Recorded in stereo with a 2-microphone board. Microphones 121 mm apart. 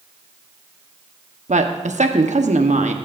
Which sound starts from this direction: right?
A woman speaking, at 1.5 s.